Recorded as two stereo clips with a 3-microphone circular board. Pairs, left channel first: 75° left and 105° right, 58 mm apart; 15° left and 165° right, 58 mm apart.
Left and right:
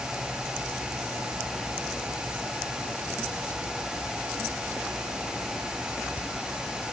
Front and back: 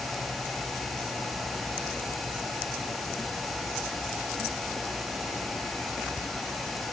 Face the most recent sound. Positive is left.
No sound to turn to.